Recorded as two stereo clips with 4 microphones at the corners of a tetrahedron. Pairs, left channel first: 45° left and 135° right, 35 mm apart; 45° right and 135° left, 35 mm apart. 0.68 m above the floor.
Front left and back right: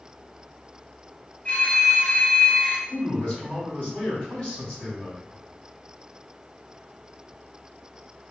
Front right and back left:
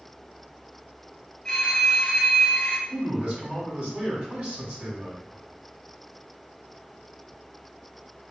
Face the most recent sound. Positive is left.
turn(degrees=90)